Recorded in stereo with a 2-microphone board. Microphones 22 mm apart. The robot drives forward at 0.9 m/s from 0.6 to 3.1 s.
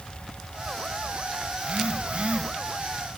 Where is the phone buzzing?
55° right (ahead or behind), 4 m; by 2.5 s 60° right (ahead or behind), 3.5 m.